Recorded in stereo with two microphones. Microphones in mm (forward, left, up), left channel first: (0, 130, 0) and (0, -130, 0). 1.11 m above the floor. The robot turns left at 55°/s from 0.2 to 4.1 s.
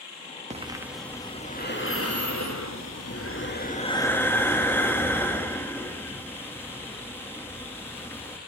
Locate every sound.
0.5 s breathing: 155° right, 2 m; by 8.4 s 10° left, 2 m